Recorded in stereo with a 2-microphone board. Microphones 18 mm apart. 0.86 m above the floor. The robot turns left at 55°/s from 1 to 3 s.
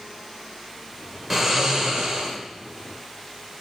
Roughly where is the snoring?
Ahead.